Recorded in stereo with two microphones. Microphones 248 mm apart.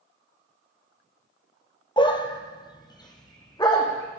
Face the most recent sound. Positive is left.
turn(degrees=15)  # may be behind; listen again after turning